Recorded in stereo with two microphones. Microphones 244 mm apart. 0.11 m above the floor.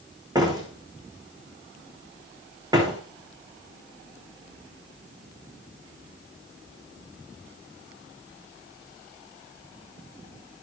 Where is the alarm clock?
I don't hear an alarm clock.